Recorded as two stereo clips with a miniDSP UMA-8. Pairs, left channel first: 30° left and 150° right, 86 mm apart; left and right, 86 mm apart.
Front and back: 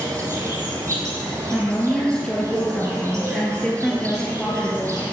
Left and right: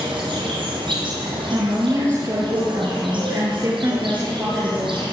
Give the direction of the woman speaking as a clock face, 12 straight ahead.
2 o'clock.